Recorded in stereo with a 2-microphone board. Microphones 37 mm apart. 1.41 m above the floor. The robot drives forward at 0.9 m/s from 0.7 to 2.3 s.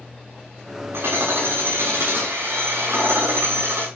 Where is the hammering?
85° right, 6.5 m; by 3.9 s 75° right (ahead or behind), 6.5 m.